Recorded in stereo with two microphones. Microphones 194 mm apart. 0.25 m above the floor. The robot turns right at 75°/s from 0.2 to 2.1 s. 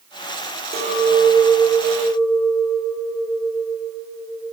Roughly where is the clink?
Ahead right.